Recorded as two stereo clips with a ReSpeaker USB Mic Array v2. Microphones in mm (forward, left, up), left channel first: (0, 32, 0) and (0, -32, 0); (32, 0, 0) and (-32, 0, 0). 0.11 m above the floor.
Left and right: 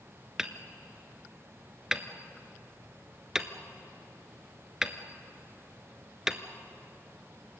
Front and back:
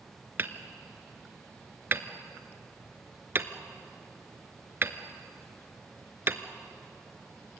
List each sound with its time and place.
0.4 s hammering: 165° right, 1.0 m